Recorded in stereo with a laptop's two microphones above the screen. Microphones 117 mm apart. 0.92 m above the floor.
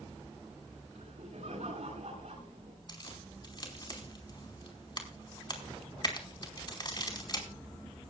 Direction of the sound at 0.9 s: 70° right (ahead or behind).